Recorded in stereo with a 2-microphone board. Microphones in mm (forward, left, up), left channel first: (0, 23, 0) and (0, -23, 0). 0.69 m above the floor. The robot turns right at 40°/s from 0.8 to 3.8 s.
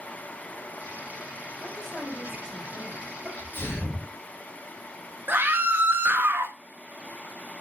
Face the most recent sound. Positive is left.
turn(degrees=-50)  # may be behind; listen again after turning